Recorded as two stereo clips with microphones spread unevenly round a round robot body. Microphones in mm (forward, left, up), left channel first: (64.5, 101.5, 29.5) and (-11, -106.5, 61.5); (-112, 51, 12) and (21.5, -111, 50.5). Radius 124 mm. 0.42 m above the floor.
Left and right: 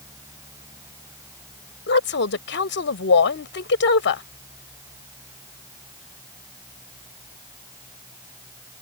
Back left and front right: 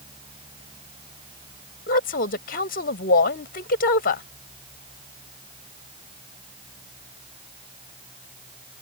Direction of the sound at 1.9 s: 90° left.